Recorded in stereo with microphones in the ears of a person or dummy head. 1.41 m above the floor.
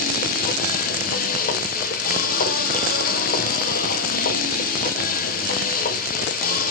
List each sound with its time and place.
0.0 s a machine running: 55° left (ahead or behind), 0.7 m